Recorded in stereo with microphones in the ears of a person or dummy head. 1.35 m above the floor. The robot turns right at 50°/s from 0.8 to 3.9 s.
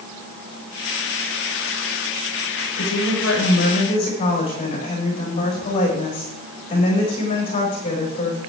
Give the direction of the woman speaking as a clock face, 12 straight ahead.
9 o'clock.